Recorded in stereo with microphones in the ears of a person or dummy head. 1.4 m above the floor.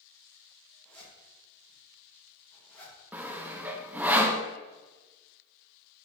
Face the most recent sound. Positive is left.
turn(degrees=-15)  # may be behind; listen again after turning